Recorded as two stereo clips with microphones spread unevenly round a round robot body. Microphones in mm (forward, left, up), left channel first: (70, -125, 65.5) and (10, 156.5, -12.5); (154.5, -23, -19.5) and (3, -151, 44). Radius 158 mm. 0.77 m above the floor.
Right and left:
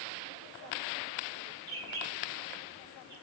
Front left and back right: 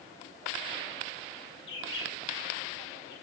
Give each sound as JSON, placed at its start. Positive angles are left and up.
{"t": 1.7, "sound": "a bird", "azimuth_deg": 25, "distance_m": 6.0}